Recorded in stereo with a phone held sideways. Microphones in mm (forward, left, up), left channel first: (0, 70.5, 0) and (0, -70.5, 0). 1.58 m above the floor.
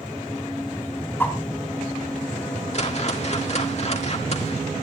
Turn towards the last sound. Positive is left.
turn(degrees=50)  # may be behind; listen again after turning